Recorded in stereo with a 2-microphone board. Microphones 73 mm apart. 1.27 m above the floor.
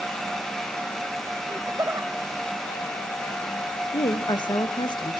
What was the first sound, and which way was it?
Laughter, 65° right (ahead or behind).